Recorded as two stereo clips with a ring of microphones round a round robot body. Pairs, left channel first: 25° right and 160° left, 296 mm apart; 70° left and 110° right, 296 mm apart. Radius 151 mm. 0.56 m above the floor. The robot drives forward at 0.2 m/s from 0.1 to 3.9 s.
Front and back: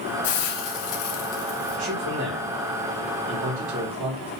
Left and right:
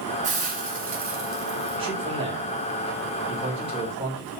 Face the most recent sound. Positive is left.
turn(degrees=175)